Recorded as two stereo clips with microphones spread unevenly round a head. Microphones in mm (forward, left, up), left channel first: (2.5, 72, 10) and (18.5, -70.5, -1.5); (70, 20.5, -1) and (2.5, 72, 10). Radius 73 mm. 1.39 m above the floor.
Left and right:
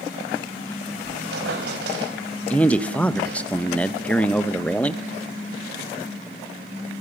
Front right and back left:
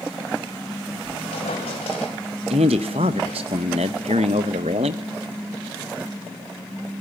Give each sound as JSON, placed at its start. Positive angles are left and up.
{"t": 1.0, "sound": "a squeak", "azimuth_deg": -75, "distance_m": 4.0}
{"t": 2.5, "sound": "a man speaking", "azimuth_deg": 175, "distance_m": 1.2}